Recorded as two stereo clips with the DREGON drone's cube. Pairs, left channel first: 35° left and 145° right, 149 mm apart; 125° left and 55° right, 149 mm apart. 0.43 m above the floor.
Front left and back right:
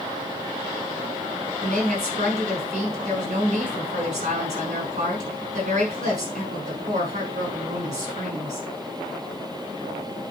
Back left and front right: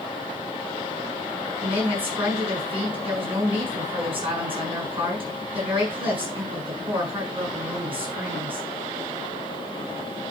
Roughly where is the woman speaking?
Right.